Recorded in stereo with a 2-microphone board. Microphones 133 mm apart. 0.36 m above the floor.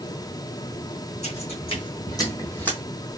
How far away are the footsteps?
About 1.2 m.